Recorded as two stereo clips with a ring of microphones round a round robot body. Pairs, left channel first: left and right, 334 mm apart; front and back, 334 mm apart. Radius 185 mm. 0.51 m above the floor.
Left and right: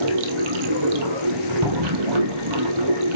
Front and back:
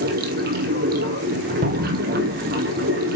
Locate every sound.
0.0 s running water: 115° right, 1.5 m
1.6 s a cupboard door: 120° right, 2 m